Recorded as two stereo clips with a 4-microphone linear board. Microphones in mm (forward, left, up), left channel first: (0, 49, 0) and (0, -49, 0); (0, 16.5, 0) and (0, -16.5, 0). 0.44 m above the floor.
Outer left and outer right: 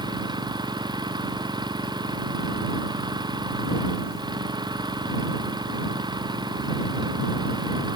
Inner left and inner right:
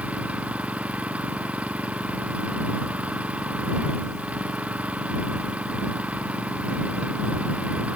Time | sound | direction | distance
0.0 | an engine running | 45° right (ahead or behind) | ?